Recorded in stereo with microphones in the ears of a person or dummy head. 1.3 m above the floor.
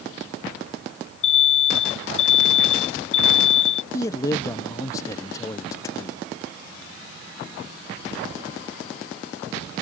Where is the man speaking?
15° left (ahead or behind).